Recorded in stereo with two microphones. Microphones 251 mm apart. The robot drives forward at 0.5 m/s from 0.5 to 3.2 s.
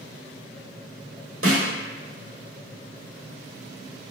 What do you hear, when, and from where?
1.4 s a snare drum: 60° right (ahead or behind), 1.1 m; by 1.7 s 65° right (ahead or behind), 1.0 m